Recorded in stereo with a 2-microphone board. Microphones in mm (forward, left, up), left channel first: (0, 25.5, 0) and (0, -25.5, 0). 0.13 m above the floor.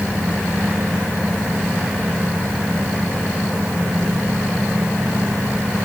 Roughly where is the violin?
I don't hear a violin.